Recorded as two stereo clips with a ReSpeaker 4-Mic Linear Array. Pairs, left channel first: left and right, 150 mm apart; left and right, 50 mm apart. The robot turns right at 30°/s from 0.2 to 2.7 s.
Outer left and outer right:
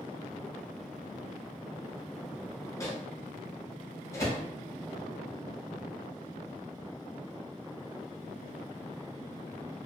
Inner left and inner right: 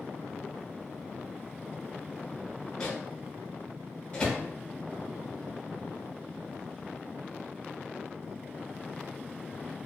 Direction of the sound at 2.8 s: 20° left (ahead or behind).